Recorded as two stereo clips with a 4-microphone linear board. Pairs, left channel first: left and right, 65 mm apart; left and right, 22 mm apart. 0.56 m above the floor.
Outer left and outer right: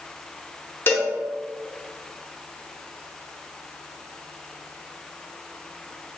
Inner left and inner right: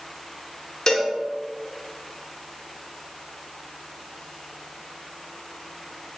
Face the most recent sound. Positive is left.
turn(degrees=35)  # may be behind; listen again after turning